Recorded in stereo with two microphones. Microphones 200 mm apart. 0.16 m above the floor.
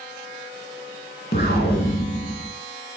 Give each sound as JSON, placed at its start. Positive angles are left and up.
{"t": 1.3, "sound": "an explosion", "side_deg": 55, "distance_m": 0.6}